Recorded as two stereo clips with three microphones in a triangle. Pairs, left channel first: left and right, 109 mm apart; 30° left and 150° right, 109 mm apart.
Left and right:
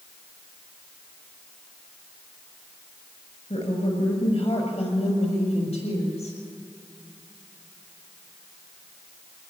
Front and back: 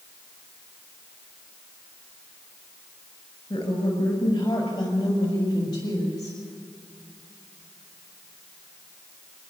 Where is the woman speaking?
80° left, 5 m; by 6.4 s 85° left, 8.5 m.